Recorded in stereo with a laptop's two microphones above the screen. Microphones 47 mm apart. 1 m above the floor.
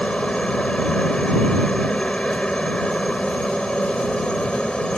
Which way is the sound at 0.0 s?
20° left (ahead or behind).